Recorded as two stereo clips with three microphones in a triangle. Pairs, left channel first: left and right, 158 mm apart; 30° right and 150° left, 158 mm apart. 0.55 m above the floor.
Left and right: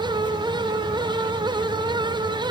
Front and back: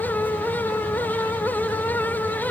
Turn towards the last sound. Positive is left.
No sound to turn to.